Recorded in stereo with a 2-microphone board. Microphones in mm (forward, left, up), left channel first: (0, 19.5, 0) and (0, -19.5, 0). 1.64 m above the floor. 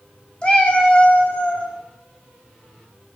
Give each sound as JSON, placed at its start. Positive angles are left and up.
{"t": 0.4, "sound": "a cat meowing", "side_deg": 25, "distance_m": 1.2}